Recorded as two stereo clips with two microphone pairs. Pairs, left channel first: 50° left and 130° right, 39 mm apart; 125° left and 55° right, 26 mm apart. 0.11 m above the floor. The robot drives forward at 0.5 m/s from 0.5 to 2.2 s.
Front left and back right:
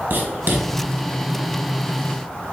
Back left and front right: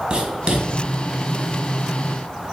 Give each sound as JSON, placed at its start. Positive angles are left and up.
{"t": 0.1, "sound": "writing", "azimuth_deg": -105, "distance_m": 1.4}